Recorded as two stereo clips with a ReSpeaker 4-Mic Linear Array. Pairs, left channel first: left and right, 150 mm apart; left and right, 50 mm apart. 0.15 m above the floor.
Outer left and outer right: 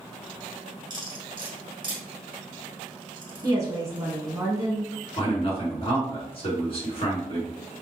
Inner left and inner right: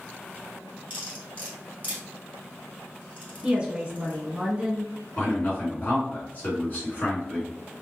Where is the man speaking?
40° left (ahead or behind), 1.8 m.